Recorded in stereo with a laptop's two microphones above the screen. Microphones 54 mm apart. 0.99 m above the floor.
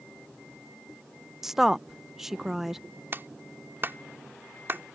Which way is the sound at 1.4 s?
5° right (ahead or behind).